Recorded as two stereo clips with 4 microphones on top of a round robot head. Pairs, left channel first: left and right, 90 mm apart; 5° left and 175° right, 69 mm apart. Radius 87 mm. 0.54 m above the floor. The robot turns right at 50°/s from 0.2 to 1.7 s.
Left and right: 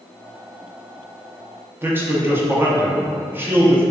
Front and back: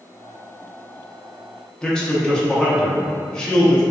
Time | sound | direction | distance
1.8 | a man speaking | 60° right | 0.6 m